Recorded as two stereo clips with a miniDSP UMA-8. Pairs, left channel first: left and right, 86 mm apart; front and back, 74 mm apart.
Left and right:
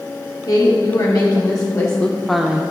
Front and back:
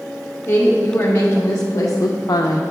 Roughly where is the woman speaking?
Ahead left.